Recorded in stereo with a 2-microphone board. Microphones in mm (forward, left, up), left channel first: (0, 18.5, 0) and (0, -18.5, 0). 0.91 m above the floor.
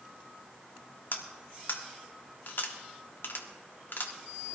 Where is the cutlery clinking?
70° left (ahead or behind), 1.3 m.